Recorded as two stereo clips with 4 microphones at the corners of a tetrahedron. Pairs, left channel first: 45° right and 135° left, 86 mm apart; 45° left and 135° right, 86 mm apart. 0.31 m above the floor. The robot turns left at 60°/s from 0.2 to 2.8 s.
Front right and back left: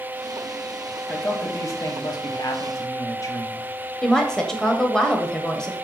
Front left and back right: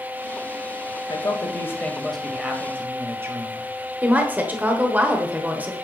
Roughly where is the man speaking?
Ahead left.